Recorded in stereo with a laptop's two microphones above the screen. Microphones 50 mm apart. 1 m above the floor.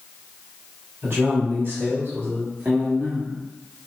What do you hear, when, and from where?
1.0 s a man speaking: 45° right (ahead or behind), 2.5 m; by 3.4 s 30° right (ahead or behind), 1.2 m